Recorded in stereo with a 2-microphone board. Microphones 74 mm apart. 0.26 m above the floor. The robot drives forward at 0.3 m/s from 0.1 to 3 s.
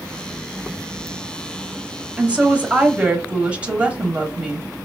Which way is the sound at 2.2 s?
15° right (ahead or behind).